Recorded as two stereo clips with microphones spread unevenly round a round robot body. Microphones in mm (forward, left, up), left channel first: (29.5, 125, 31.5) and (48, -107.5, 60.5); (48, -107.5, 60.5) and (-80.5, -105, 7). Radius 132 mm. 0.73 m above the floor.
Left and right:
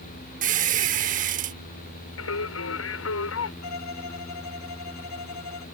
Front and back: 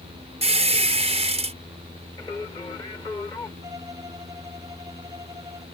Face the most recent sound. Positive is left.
turn(degrees=105)